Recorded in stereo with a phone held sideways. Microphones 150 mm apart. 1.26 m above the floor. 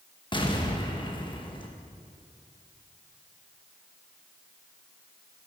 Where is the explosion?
35° left (ahead or behind), 1.4 m.